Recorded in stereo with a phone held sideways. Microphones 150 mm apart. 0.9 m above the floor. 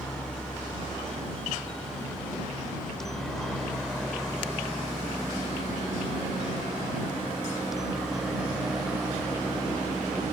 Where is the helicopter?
5° left (ahead or behind); by 10.3 s 5° right (ahead or behind).